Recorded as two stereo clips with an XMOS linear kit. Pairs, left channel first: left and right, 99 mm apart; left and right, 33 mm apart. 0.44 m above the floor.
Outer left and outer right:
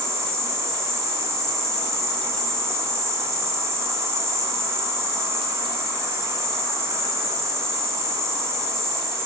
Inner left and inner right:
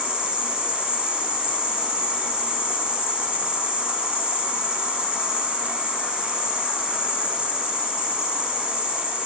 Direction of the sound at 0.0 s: 30° right (ahead or behind).